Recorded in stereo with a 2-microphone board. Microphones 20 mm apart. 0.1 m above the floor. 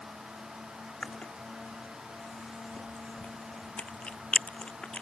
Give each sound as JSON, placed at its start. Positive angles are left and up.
{"t": 1.0, "sound": "chewing", "side_deg": 80}